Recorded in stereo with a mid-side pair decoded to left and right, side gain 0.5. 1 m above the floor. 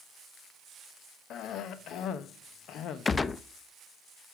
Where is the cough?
65° left, 0.9 m.